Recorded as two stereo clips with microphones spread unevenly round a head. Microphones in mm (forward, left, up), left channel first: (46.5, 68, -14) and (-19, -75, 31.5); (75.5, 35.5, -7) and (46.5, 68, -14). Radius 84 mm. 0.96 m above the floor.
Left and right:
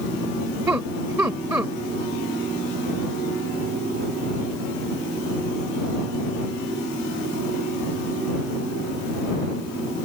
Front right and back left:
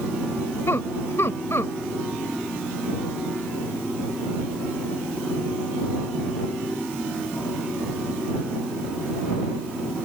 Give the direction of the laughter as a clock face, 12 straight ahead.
1 o'clock.